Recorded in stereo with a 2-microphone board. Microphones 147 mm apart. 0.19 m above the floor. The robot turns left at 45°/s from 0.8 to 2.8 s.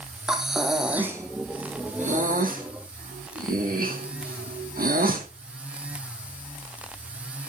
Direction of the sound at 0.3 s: 5° right (ahead or behind).